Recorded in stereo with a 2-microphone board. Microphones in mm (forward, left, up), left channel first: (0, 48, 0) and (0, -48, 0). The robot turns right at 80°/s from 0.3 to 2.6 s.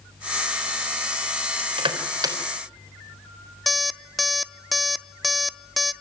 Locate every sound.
1.6 s crushing: 75° right (ahead or behind), 3.5 m; by 2.4 s 35° right (ahead or behind), 3.5 m
3.7 s an alarm clock: centre (ahead or behind), 0.6 m